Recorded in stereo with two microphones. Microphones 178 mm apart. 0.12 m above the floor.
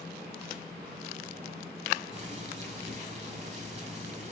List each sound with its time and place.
2.1 s boiling: 40° right (ahead or behind), 4.5 m